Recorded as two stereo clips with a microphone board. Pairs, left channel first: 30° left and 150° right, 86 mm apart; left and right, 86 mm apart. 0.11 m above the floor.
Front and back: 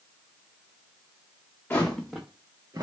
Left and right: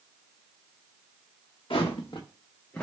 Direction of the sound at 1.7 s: 100° left.